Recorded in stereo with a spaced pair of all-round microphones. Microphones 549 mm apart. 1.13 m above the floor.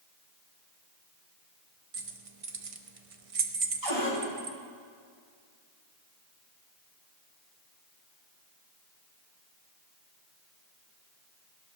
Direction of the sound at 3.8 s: 50° right (ahead or behind).